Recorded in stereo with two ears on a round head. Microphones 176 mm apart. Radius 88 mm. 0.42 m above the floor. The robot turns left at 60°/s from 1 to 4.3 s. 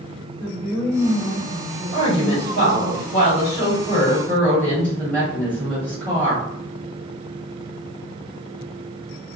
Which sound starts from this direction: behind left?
A woman speaking, at 1.9 s.